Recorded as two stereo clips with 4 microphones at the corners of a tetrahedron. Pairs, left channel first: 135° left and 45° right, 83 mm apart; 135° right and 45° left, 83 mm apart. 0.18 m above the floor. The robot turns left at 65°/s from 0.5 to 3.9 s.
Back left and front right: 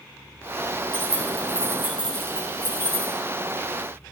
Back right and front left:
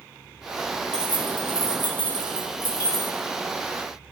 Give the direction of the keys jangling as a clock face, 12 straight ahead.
2 o'clock.